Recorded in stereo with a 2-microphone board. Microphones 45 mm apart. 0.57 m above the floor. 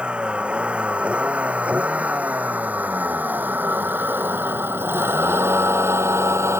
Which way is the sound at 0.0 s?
20° right (ahead or behind).